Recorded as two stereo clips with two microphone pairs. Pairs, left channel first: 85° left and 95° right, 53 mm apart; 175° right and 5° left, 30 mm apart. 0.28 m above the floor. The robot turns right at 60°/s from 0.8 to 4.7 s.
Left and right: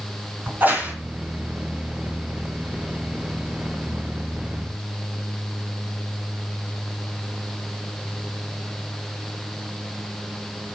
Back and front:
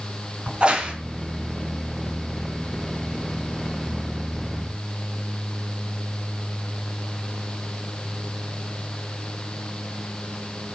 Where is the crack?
40° right, 3.5 m; by 0.9 s 35° right, 3.5 m.